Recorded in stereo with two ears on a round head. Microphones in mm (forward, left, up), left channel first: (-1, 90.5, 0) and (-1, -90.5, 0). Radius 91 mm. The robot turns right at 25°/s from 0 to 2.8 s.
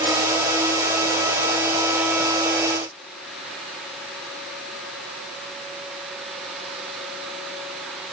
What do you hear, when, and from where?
Only background noise.